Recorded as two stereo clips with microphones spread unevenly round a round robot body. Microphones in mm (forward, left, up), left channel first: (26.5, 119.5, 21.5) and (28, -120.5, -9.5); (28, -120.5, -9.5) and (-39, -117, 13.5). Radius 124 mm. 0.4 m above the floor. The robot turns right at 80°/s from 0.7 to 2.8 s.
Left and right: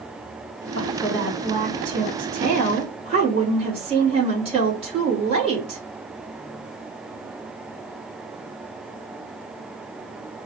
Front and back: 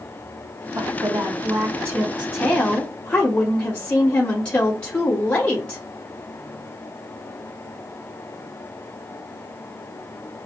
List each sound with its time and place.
0.7 s a woman speaking: 150° left, 1.8 m; by 5.8 s 45° right, 1.8 m